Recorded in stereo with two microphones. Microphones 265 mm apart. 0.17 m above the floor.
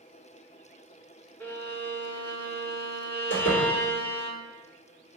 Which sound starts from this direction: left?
A door slam, at 3.3 s.